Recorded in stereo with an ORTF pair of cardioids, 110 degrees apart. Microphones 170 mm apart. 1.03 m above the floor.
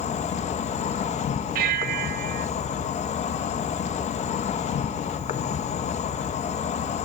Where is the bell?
60° right, 1.0 m.